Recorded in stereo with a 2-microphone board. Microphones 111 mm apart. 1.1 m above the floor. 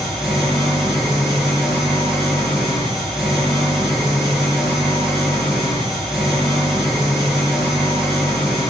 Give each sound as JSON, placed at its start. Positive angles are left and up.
{"t": 0.0, "sound": "an engine running", "side_deg": -5, "distance_m": 7.0}